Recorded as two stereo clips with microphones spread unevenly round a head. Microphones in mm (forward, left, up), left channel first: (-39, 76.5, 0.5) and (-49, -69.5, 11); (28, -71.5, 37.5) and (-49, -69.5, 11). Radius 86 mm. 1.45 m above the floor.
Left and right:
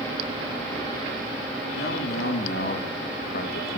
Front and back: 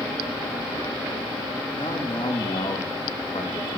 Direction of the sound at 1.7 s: 55° left.